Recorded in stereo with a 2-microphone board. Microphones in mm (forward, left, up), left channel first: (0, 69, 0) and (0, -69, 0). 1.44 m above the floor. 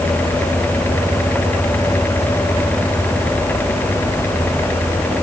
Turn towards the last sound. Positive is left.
No sound to turn to.